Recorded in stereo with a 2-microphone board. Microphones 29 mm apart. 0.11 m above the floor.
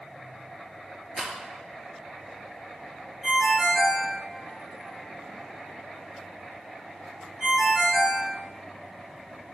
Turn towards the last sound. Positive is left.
turn(degrees=-10)  # may be behind; listen again after turning